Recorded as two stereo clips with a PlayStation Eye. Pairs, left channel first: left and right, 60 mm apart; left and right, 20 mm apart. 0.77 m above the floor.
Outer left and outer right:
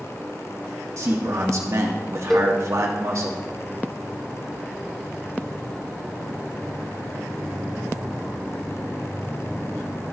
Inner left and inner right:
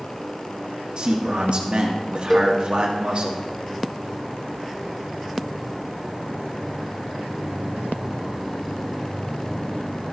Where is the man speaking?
60° right (ahead or behind), 1.5 m.